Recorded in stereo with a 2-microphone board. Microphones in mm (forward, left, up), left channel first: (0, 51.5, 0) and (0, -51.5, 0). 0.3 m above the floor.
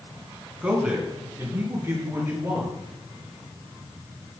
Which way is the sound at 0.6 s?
10° right (ahead or behind).